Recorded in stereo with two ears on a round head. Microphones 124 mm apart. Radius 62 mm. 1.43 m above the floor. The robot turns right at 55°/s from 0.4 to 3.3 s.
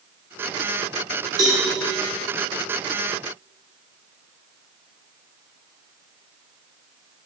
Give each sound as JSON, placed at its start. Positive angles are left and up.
{"t": 1.4, "sound": "a cowbell", "side_deg": -25, "distance_m": 2.5}